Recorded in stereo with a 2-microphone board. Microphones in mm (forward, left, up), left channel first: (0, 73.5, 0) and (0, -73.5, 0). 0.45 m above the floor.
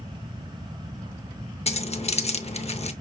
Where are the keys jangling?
45° left (ahead or behind), 0.6 m.